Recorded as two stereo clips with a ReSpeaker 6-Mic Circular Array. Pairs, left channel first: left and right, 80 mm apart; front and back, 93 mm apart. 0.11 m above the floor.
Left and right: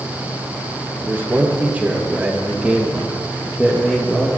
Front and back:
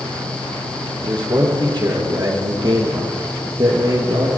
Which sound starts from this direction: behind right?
A man speaking, at 1.0 s.